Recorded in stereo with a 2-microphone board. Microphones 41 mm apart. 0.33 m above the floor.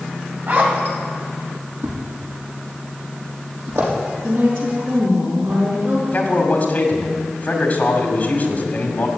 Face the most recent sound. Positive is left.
turn(degrees=40)  # may be behind; listen again after turning